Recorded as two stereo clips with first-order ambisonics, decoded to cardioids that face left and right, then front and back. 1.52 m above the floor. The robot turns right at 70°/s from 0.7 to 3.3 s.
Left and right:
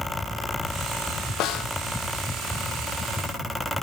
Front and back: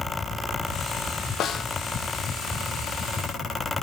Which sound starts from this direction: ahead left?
A snare drum, at 1.4 s.